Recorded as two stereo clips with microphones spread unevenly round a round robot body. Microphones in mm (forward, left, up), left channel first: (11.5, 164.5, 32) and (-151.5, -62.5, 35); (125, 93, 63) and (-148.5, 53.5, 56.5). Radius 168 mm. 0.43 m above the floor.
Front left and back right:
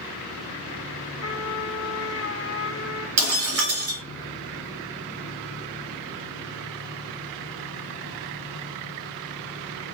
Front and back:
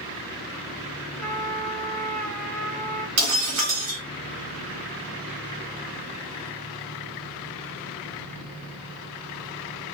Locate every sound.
1.2 s a trumpet: 100° left, 1.0 m
3.2 s breaking glass: 130° right, 1.6 m